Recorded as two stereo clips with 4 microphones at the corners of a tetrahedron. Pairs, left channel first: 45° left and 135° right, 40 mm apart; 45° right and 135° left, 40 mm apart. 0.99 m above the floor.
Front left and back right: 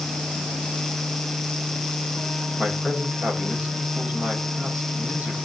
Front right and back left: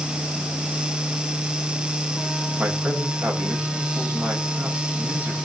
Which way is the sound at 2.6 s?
170° left.